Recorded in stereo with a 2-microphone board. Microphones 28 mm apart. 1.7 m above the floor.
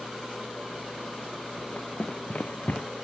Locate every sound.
1.6 s running footsteps: 55° left (ahead or behind); by 2.9 s 65° left (ahead or behind)